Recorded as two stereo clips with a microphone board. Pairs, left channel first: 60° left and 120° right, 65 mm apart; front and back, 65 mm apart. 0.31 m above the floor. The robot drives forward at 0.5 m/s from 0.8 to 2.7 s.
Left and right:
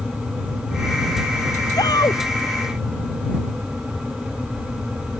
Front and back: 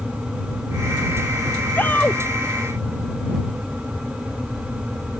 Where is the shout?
60° left.